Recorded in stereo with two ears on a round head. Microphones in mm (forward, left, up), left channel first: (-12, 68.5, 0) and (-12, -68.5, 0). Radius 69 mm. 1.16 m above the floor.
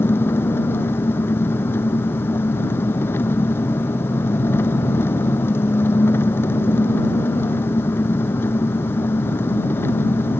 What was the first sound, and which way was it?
An engine running, 15° left (ahead or behind).